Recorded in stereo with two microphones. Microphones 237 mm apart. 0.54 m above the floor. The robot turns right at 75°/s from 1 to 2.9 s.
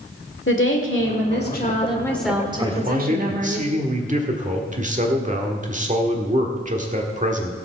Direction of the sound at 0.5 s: 90° left.